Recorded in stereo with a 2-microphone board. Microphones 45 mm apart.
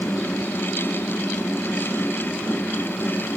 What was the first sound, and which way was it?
Only background noise.